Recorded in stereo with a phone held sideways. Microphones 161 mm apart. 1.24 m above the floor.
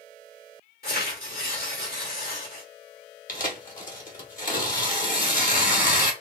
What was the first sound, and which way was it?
Tearing paper, 75° left (ahead or behind).